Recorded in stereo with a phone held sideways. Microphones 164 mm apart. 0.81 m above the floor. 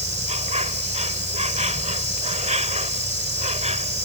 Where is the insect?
45° right (ahead or behind).